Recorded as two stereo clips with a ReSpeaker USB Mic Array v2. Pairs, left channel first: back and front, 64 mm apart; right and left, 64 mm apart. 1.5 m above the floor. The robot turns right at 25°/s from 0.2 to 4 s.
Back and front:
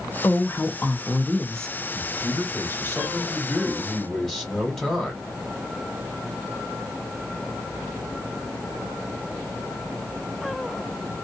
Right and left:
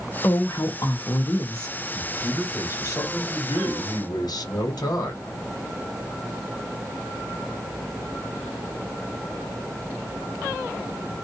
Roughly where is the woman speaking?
Behind right.